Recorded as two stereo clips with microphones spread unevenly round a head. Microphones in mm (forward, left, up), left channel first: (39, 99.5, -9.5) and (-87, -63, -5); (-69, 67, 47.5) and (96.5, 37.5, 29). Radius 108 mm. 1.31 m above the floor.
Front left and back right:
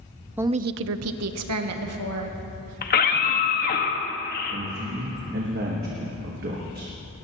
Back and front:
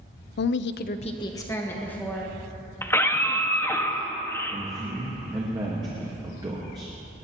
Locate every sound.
0.4 s a woman speaking: 150° left, 0.5 m; by 2.4 s 105° right, 2.5 m
2.8 s a scream: 95° left, 1.6 m
4.5 s a man speaking: 80° right, 1.5 m